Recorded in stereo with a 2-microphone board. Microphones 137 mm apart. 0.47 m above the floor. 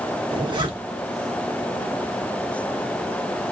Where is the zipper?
35° right (ahead or behind), 0.8 m.